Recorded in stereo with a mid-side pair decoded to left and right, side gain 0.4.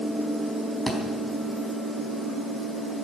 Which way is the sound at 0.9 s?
15° left.